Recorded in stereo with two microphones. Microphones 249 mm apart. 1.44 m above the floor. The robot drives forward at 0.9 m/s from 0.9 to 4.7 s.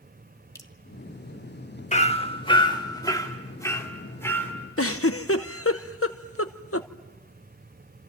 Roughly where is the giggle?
Left.